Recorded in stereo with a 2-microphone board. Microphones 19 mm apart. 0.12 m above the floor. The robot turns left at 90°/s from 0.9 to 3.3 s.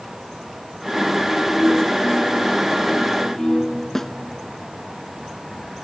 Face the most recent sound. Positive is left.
turn(degrees=20)  # may be behind; listen again after turning